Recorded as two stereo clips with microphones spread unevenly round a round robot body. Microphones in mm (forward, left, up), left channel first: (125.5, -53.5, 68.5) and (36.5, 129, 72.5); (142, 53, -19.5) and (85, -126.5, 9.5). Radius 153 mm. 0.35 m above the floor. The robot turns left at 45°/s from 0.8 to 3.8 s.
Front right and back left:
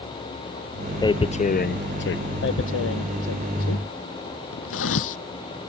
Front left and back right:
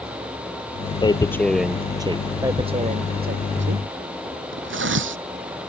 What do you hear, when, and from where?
1.0 s tearing paper: 5° left; by 2.2 s 45° right
2.4 s tearing paper: 35° right; by 5.2 s 100° right